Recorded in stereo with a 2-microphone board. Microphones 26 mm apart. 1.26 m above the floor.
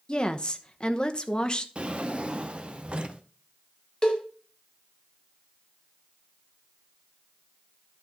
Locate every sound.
0.1 s a woman speaking: 30° left (ahead or behind), 0.9 m
1.8 s a drawer: 40° right (ahead or behind), 0.8 m
4.0 s a cowbell: 25° left (ahead or behind), 1.7 m